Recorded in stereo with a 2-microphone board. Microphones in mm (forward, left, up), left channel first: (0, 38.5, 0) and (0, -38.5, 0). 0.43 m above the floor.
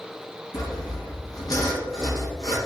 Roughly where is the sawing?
Left.